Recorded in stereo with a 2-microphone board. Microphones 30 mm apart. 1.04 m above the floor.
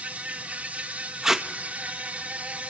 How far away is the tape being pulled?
About 1.2 m.